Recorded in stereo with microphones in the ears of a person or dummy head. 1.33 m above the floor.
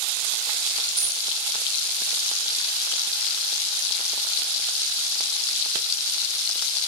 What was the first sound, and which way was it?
A dropped coin, 35° right (ahead or behind).